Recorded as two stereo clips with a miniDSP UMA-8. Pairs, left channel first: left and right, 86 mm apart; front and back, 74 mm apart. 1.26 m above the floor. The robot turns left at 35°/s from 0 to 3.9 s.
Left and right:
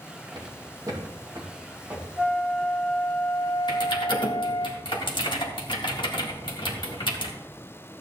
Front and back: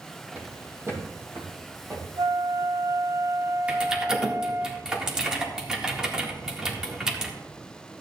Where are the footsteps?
115° right, 3 m; by 2.1 s 155° right, 2.5 m.